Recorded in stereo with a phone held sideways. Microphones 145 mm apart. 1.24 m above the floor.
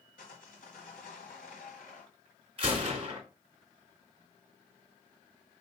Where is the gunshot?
40° right (ahead or behind), 3 m.